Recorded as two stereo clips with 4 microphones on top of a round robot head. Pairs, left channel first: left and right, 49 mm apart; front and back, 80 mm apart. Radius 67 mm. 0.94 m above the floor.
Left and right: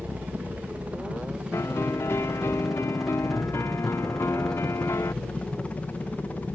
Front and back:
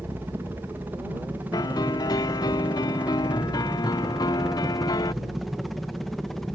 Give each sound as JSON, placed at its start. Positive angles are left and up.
{"t": 0.0, "sound": "a helicopter", "azimuth_deg": -125}
{"t": 1.5, "sound": "a piano", "azimuth_deg": 40}